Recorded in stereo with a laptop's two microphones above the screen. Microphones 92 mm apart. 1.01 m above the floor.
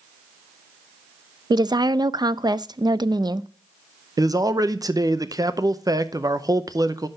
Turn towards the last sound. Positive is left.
turn(degrees=-40)  # may be behind; listen again after turning